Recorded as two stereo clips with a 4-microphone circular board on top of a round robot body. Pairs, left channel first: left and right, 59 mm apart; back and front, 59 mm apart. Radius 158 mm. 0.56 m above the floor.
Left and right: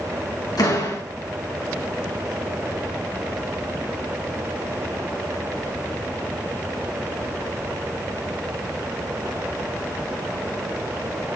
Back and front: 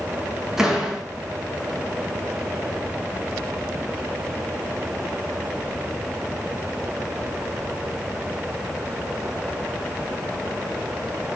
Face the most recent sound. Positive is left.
turn(degrees=80)